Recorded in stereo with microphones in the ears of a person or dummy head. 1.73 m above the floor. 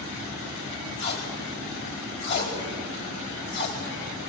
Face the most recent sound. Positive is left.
turn(degrees=70)  # may be behind; listen again after turning